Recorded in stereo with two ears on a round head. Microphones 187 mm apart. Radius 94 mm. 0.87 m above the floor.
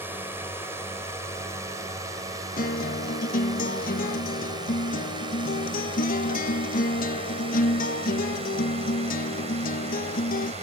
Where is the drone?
10° right (ahead or behind); by 10.6 s 35° right (ahead or behind).